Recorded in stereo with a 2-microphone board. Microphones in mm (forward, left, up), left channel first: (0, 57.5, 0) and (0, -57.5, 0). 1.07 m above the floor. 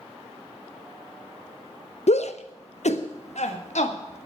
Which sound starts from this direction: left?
A shout, at 2.1 s.